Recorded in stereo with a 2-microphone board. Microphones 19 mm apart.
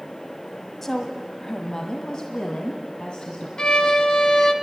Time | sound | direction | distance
0.8 | a woman speaking | 20° left (ahead or behind) | 1.3 m
3.6 | a violin | 45° left (ahead or behind) | 1.4 m